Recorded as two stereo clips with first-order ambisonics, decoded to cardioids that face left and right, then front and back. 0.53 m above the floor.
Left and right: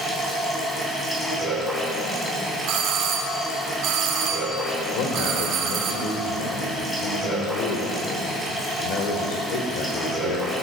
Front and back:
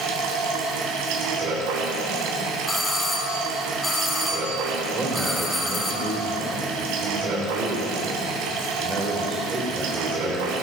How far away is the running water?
About 3.5 m.